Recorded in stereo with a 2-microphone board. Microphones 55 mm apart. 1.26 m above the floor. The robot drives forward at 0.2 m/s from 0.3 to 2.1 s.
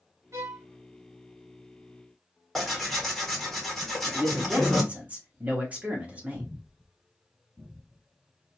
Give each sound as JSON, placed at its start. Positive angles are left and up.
{"t": 0.3, "sound": "a violin", "side_deg": -60, "distance_m": 0.9}
{"t": 2.5, "sound": "tearing paper", "side_deg": 5, "distance_m": 1.2}
{"t": 4.1, "sound": "a man speaking", "side_deg": -25, "distance_m": 1.1}
{"t": 6.3, "sound": "breathing", "side_deg": -10, "distance_m": 1.7}